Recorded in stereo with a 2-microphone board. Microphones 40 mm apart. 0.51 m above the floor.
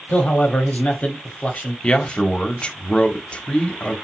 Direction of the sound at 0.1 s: 40° left (ahead or behind).